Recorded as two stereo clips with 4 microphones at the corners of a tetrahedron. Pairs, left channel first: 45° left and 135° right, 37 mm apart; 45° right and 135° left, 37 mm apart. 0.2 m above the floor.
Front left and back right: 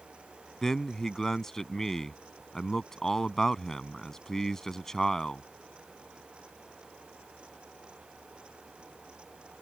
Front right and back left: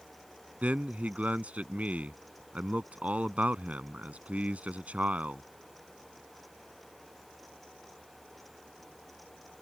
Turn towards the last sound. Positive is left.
turn(degrees=120)